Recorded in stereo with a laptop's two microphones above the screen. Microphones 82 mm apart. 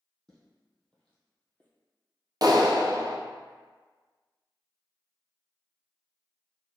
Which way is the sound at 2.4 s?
50° right (ahead or behind).